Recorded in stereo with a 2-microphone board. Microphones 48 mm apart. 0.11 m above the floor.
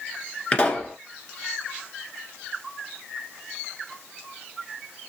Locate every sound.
0.5 s a pop: 25° left (ahead or behind), 1.6 m